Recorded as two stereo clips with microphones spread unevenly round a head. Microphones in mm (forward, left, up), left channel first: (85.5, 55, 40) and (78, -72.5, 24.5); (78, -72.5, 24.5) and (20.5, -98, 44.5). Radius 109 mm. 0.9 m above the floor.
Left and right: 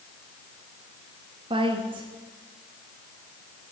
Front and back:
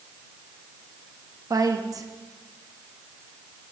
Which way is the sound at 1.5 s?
135° right.